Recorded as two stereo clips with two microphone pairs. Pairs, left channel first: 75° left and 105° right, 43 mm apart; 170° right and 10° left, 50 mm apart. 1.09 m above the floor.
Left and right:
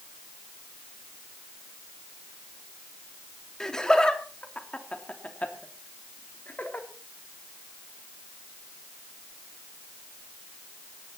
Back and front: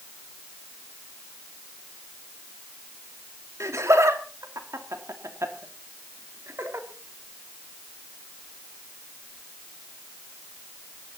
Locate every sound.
3.6 s laughter: straight ahead, 3 m; by 6.9 s 35° left, 3.5 m